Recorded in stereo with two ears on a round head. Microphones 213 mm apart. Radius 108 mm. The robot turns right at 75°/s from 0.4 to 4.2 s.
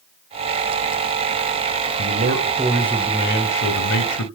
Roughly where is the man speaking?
Ahead right.